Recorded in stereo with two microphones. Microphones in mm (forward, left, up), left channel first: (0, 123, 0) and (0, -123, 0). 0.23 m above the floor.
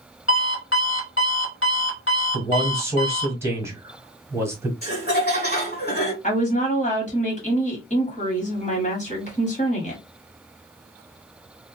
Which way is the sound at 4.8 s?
40° left (ahead or behind).